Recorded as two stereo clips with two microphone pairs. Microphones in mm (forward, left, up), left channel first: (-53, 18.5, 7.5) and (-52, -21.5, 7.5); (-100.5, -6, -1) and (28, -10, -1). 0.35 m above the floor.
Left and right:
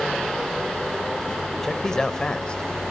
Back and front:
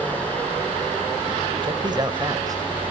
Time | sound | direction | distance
1.6 | a man speaking | 20° left | 1.5 m